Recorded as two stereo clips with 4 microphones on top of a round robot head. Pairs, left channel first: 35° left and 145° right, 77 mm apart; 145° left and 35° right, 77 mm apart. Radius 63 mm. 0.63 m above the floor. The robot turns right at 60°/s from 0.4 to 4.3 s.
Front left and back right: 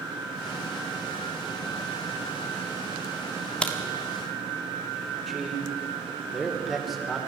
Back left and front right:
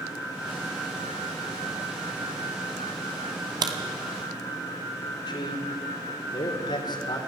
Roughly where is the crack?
Ahead right.